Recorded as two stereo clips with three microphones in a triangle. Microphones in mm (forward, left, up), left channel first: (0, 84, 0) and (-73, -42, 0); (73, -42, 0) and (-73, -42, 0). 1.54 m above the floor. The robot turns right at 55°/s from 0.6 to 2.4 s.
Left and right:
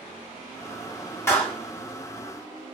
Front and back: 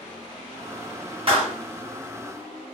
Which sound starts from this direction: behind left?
A clap, at 1.3 s.